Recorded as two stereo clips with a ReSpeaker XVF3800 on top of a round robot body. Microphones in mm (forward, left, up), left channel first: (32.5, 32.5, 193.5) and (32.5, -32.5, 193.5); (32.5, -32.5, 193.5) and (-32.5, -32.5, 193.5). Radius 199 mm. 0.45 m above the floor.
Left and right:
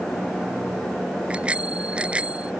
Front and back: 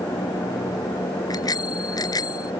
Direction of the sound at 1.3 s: 15° right.